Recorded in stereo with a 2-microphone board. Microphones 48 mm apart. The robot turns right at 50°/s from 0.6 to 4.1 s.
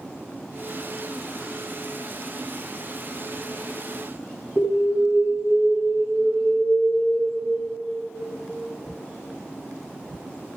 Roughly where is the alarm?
Centre.